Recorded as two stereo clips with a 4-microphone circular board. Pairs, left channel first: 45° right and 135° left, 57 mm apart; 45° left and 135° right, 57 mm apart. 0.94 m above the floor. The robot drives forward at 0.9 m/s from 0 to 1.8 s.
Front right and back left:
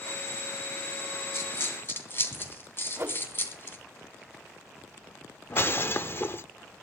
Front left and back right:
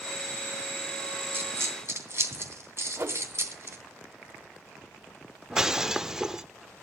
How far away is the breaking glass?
About 0.7 m.